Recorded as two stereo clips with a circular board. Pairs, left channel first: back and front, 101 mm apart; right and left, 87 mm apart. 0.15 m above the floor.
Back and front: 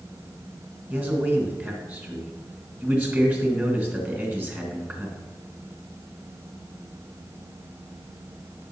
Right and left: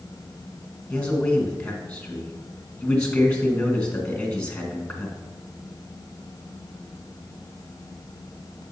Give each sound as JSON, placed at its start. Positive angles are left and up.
{"t": 0.9, "sound": "a man speaking", "azimuth_deg": -35, "distance_m": 1.8}